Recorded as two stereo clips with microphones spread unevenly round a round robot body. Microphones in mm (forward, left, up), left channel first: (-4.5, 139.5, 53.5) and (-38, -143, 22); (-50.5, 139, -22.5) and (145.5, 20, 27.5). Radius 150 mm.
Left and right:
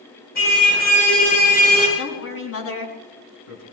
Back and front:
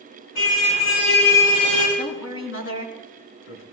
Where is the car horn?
140° left, 10 m; by 1.9 s 150° left, 10 m.